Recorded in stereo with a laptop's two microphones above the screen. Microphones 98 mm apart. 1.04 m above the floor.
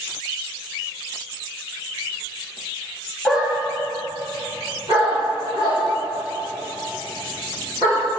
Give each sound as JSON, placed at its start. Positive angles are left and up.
{"t": 3.2, "sound": "a dog barking", "side_deg": 0, "distance_m": 0.6}